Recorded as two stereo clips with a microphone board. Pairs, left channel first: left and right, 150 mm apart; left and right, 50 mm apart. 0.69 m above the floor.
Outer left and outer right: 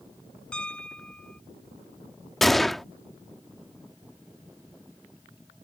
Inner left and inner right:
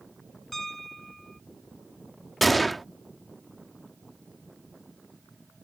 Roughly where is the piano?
Centre.